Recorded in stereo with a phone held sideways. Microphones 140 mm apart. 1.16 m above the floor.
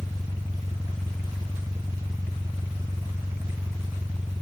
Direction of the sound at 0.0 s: 25° right (ahead or behind).